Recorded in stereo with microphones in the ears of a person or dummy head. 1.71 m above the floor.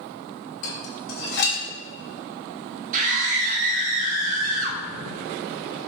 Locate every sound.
0.6 s dishes clattering: 70° left (ahead or behind), 2 m
2.9 s a scream: 40° right (ahead or behind), 1.2 m